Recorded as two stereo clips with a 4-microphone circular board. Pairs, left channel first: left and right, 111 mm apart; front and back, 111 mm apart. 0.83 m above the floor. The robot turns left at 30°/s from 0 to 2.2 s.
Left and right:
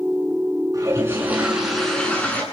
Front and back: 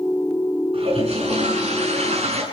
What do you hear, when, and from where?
0.7 s a toilet flushing: 150° right, 9.5 m; by 2.4 s 165° left, 9.5 m